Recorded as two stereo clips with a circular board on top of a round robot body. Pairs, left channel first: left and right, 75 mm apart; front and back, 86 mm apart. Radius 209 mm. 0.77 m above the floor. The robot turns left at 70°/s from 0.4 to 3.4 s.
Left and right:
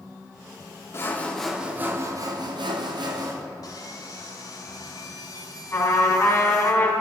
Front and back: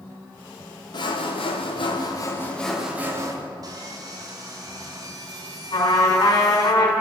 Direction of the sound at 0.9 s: 35° left.